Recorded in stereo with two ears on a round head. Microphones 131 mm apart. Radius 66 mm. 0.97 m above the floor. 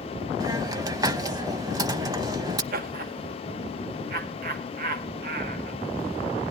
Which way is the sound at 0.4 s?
25° right (ahead or behind).